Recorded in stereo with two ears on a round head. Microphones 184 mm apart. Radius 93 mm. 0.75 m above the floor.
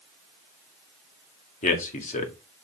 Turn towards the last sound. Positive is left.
turn(degrees=40)  # may be behind; listen again after turning